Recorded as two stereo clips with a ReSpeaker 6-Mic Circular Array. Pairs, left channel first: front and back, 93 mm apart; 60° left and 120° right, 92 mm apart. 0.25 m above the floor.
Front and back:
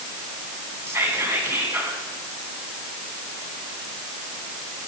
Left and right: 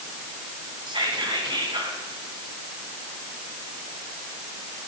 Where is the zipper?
No zipper in this recording.